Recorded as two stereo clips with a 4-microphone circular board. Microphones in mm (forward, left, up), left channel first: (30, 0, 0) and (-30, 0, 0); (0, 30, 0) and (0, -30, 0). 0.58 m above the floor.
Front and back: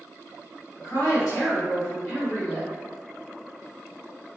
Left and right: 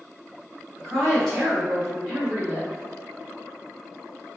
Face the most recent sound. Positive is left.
turn(degrees=-40)